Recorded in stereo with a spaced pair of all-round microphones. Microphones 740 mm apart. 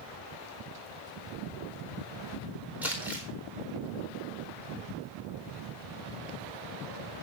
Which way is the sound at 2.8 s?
Centre (ahead or behind).